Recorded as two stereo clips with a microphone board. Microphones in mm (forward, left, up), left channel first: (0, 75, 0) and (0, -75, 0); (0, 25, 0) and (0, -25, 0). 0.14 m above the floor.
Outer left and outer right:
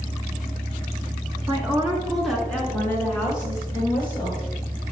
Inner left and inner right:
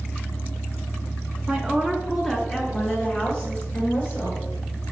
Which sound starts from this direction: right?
A woman speaking, at 1.5 s.